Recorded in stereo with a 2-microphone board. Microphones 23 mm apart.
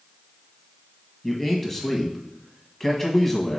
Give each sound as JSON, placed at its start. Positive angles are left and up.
{"t": 1.2, "sound": "a man speaking", "side_deg": 15, "distance_m": 1.3}